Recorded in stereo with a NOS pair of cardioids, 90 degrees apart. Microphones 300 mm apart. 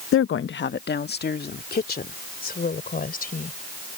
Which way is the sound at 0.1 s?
50° left.